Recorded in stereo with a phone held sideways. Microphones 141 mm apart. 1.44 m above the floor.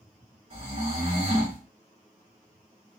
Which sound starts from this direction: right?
Snoring, at 0.5 s.